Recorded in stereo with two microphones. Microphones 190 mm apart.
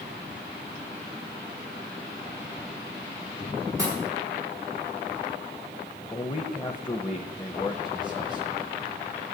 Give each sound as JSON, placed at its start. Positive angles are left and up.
{"t": 3.8, "sound": "a pop", "side_deg": -15, "distance_m": 6.5}
{"t": 6.1, "sound": "a man speaking", "side_deg": 25, "distance_m": 0.9}